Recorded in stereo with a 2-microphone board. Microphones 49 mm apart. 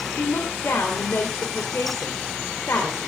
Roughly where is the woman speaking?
Left.